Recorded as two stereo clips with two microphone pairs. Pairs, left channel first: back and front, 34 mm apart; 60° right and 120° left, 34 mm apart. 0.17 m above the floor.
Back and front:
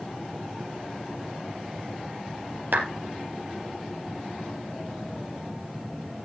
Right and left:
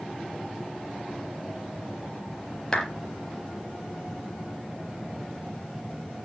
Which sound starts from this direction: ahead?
A clap, at 2.7 s.